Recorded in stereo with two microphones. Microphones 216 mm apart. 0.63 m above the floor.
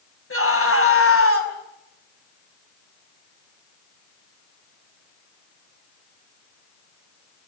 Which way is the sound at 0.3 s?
75° left (ahead or behind).